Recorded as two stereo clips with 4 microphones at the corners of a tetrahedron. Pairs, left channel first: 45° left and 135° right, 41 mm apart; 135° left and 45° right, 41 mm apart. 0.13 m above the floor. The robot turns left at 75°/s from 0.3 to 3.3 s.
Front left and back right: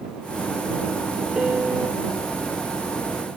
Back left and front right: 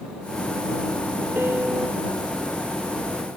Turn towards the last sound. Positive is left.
turn(degrees=145)